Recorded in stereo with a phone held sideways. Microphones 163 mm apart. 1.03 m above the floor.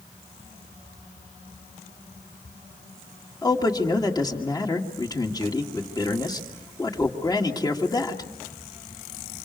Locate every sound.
3.4 s a man speaking: 25° left (ahead or behind), 2 m